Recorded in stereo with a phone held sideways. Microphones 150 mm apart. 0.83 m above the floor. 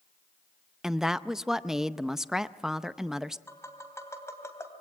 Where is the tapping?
20° left (ahead or behind), 2.5 m.